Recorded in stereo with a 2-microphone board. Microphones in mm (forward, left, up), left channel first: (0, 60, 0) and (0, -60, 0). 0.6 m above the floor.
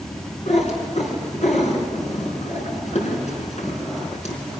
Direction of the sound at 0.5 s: 70° left (ahead or behind).